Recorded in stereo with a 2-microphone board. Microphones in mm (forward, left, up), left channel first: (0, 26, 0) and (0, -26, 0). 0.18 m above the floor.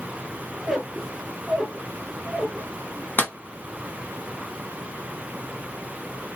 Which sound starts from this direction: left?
A clap, at 3.2 s.